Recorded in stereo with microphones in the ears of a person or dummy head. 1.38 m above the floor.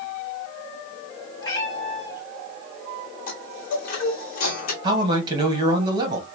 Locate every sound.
1.4 s a cat meowing: 25° left (ahead or behind), 2 m
3.3 s a chime: 55° left (ahead or behind), 1.3 m
4.8 s a man speaking: 30° right (ahead or behind), 1.4 m